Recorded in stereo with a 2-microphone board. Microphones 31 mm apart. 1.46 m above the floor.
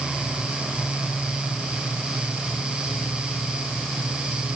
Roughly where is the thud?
I don't hear a thud.